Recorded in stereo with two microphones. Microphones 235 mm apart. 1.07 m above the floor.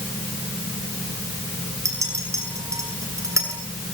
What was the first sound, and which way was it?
A clink, 10° right (ahead or behind).